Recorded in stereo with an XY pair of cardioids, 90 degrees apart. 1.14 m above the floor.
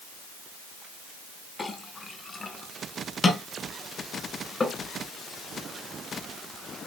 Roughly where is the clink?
Ahead left.